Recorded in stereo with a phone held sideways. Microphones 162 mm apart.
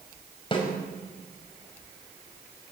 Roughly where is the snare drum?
Left.